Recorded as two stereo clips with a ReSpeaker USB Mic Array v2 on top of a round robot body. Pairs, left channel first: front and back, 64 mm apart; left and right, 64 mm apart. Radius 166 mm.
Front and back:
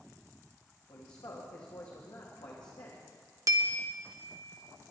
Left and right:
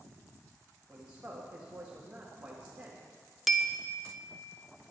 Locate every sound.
0.9 s a man speaking: 20° right, 1.7 m
3.5 s a bell: straight behind, 1.2 m